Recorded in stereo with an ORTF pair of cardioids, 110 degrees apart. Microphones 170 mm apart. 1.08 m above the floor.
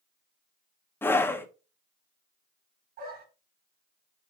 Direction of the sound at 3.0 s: 65° right.